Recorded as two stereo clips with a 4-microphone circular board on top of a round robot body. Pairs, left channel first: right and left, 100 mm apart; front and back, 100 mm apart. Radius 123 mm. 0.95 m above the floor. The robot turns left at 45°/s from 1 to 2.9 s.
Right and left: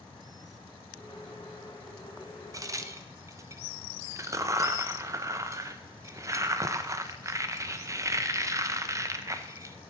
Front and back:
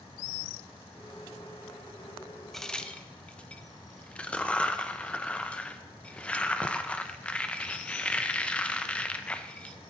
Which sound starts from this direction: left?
A crack, at 2.5 s.